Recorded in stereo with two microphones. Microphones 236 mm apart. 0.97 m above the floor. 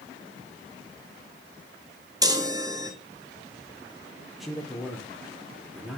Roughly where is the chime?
Centre.